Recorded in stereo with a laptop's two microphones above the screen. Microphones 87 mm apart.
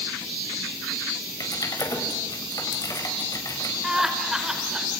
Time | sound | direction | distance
1.4 | typing on a keyboard | 45° left (ahead or behind) | 6 m
3.8 | laughter | 5° right (ahead or behind) | 5 m